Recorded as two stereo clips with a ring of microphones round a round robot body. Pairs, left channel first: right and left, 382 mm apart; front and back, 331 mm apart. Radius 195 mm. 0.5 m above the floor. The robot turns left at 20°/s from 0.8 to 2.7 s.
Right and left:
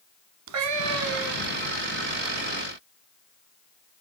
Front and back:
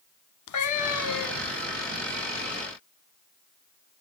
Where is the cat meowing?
40° left, 1.2 m; by 1.6 s 20° left, 1.2 m.